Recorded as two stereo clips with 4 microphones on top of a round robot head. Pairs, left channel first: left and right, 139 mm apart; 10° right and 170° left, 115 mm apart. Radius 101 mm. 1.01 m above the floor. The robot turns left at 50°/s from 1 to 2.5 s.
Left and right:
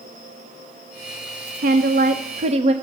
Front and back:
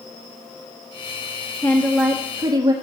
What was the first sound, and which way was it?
A woman speaking, 90° right.